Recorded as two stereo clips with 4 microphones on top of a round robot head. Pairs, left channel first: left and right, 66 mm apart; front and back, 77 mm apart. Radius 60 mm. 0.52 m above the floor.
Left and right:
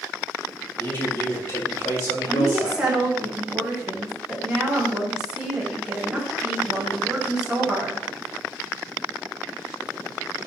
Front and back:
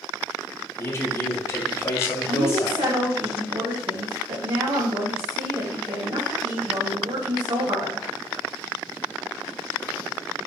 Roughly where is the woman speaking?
Behind.